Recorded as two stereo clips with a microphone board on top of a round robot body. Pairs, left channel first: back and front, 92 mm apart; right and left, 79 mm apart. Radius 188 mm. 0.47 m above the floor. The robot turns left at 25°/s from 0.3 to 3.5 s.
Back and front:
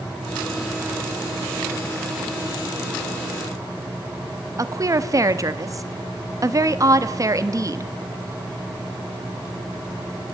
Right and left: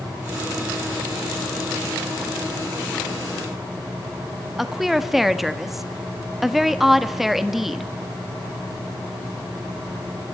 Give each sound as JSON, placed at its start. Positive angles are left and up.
{"t": 4.6, "sound": "a woman speaking", "azimuth_deg": 5, "distance_m": 1.5}